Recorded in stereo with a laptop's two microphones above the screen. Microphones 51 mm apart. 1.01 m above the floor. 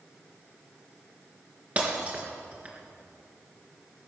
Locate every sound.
1.8 s breaking glass: 30° right (ahead or behind), 3.5 m